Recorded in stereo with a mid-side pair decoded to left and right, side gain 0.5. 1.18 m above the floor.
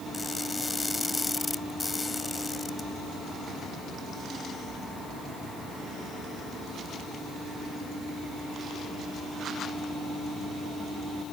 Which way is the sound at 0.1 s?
20° left.